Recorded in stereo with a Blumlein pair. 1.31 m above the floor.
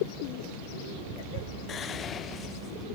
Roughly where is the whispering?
Ahead left.